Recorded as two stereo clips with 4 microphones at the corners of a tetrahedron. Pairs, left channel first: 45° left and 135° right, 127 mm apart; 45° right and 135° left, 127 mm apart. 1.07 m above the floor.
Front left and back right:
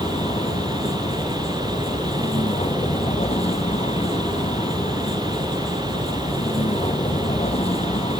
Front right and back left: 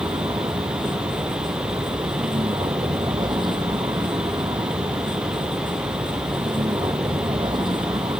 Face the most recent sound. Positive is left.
turn(degrees=85)